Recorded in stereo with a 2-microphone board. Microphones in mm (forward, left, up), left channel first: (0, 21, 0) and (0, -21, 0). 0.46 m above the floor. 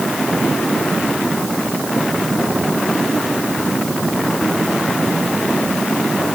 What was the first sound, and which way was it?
Only background noise.